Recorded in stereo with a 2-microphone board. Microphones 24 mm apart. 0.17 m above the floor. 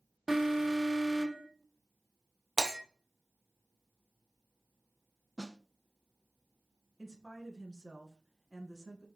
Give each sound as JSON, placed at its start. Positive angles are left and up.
{"t": 0.3, "sound": "an alarm", "side_deg": -10, "distance_m": 1.5}
{"t": 2.6, "sound": "breaking glass", "side_deg": -15, "distance_m": 2.5}
{"t": 5.4, "sound": "a snare drum", "side_deg": 30, "distance_m": 0.7}
{"t": 7.0, "sound": "a woman speaking", "side_deg": 20, "distance_m": 1.7}